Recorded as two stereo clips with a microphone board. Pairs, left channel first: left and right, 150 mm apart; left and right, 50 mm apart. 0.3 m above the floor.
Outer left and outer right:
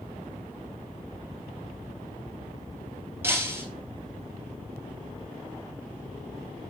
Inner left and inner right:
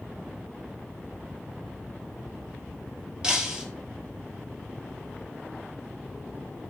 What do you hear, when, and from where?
3.2 s breaking glass: 15° right (ahead or behind), 2 m